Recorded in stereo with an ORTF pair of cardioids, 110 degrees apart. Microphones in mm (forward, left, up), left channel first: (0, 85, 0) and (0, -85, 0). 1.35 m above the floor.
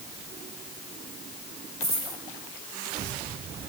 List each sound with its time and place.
1.8 s a dropped coin: 15° right, 3.5 m